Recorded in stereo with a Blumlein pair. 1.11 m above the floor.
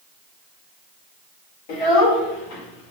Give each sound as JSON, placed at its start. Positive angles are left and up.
{"t": 1.7, "sound": "a child speaking", "azimuth_deg": 45, "distance_m": 2.5}